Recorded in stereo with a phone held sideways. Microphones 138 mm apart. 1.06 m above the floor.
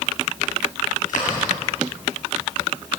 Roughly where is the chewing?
Left.